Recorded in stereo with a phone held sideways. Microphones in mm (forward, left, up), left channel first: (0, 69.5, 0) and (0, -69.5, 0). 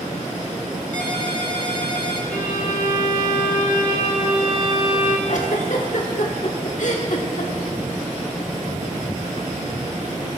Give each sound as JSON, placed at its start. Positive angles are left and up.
{"t": 0.9, "sound": "a ringtone", "side_deg": 65, "distance_m": 1.4}
{"t": 2.3, "sound": "a violin", "side_deg": 75, "distance_m": 1.4}
{"t": 5.3, "sound": "a giggle", "side_deg": 60, "distance_m": 1.3}